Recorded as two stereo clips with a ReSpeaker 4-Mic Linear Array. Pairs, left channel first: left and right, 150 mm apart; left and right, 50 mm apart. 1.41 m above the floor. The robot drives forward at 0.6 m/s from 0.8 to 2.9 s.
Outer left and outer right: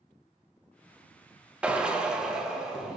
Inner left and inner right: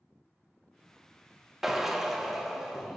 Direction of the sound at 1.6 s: 5° right (ahead or behind).